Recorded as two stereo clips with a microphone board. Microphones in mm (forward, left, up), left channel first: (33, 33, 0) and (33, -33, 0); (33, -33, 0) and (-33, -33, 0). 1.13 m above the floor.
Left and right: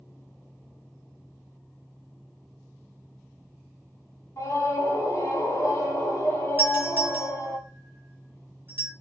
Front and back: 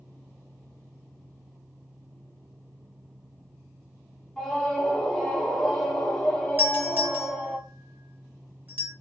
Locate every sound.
4.4 s a scream: 75° left, 0.9 m
6.6 s a doorbell: 135° right, 1.2 m